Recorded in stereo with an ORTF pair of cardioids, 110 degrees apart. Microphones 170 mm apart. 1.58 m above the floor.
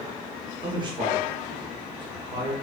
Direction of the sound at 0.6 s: 25° right.